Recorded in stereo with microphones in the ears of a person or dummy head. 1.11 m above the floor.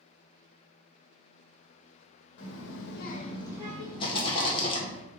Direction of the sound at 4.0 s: 25° left (ahead or behind).